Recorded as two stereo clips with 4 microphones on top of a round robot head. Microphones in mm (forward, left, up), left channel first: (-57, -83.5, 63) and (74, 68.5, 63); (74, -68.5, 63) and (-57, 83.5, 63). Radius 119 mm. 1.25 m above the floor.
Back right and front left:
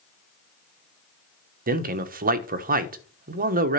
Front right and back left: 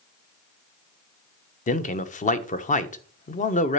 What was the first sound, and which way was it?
A man speaking, 5° left.